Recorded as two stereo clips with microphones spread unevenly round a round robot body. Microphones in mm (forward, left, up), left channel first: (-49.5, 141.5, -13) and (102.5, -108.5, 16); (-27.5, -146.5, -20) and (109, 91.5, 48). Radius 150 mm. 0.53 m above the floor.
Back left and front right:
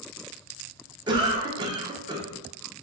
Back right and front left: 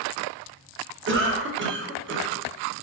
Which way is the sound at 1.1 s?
15° left.